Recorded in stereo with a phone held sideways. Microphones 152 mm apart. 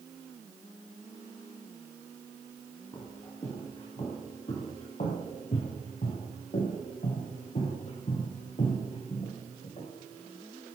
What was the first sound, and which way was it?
Footsteps, 30° left (ahead or behind).